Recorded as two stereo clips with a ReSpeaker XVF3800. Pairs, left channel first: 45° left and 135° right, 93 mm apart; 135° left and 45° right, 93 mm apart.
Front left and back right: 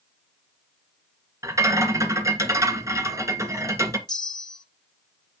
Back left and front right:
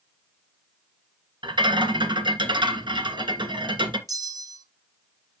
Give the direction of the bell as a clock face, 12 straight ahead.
12 o'clock.